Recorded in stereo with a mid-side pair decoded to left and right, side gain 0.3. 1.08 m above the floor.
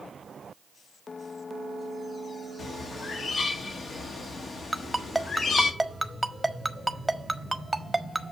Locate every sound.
2.6 s a bird: 65° left, 1.4 m
4.7 s a ringtone: 5° right, 1.3 m